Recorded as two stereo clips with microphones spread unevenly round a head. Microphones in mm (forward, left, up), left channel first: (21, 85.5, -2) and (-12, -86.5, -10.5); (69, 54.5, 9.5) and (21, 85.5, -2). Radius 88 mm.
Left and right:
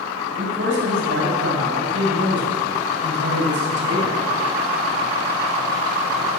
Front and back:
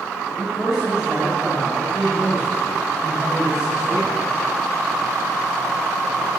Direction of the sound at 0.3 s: 125° right.